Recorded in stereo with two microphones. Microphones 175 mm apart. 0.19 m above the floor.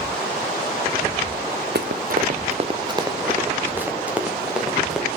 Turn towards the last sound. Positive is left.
turn(degrees=-5)  # may be behind; listen again after turning